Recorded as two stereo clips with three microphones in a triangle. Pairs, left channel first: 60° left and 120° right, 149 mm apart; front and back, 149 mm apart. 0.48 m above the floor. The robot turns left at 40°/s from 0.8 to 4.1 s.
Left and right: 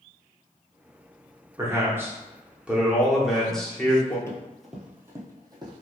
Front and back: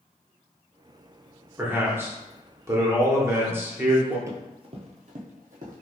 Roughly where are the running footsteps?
Behind left.